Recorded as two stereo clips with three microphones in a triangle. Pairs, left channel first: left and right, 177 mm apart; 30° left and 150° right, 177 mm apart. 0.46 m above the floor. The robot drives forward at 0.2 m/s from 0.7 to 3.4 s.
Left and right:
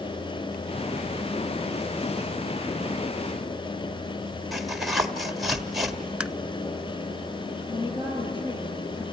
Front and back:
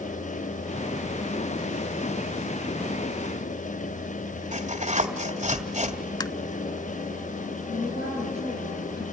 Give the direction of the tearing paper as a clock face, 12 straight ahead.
6 o'clock.